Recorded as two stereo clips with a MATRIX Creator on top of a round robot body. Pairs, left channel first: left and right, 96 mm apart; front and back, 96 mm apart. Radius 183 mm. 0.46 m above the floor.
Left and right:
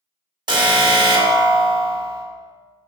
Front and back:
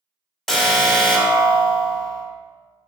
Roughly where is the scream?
No scream in this recording.